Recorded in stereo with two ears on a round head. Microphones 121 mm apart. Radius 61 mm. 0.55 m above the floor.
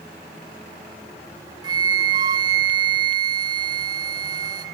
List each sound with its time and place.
1.6 s a flute: 35° right (ahead or behind), 1.3 m